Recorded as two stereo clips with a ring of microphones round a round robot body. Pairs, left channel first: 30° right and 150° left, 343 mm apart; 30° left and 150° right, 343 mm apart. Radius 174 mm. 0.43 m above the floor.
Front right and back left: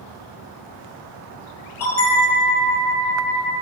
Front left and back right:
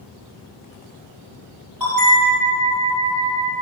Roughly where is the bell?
Behind right.